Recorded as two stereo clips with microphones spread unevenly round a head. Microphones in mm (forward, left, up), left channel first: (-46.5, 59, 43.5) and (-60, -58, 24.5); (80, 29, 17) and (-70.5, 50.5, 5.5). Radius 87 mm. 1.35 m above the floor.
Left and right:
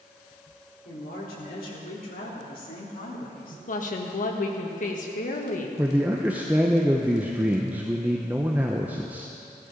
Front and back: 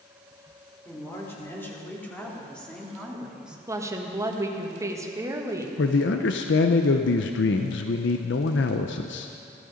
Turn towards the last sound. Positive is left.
turn(degrees=-10)